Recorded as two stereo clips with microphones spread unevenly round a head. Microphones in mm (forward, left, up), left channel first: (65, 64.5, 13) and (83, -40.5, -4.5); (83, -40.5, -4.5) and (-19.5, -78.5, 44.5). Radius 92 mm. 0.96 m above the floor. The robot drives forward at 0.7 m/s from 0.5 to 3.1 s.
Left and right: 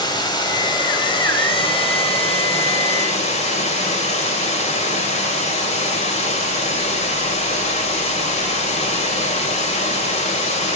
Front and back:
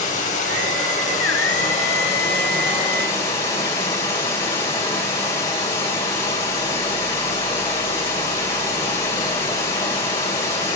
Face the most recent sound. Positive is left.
turn(degrees=85)